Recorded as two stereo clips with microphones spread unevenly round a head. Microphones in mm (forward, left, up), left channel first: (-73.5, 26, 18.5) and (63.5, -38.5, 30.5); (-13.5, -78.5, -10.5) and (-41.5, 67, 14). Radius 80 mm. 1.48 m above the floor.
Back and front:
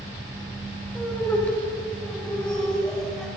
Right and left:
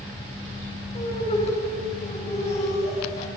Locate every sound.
0.9 s laughter: 125° right, 8.5 m; by 3.3 s 120° right, 8.5 m